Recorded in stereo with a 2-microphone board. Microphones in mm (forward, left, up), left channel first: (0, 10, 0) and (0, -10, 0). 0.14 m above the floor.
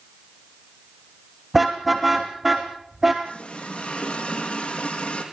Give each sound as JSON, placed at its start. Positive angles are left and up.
{"t": 1.5, "sound": "a car horn", "side_deg": -10, "distance_m": 3.5}
{"t": 3.2, "sound": "a running tap", "side_deg": 75, "distance_m": 5.0}